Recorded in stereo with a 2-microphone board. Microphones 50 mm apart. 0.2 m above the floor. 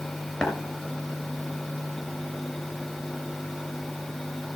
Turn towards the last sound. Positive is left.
turn(degrees=20)  # may be behind; listen again after turning